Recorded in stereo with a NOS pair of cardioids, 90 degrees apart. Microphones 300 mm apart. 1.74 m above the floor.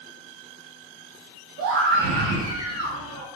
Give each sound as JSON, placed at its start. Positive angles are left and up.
{"t": 1.6, "sound": "a scream", "azimuth_deg": -55, "distance_m": 0.8}